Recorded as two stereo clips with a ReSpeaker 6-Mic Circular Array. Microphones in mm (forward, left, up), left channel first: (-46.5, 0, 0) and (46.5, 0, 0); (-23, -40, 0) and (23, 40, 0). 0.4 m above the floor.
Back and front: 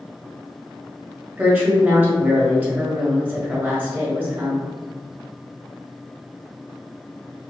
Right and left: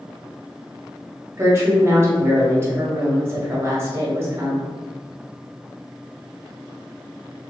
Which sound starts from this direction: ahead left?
A woman speaking, at 1.4 s.